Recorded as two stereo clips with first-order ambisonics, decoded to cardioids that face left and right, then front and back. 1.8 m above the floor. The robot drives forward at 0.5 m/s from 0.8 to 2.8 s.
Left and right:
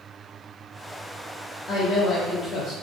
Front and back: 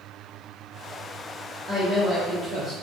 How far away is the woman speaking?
About 0.7 m.